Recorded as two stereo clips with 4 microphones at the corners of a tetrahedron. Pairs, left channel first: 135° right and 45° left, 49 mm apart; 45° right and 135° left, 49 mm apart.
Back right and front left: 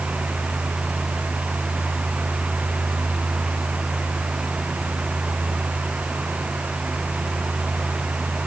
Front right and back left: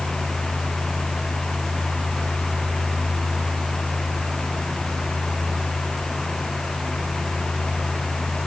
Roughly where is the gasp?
I don't hear a gasp.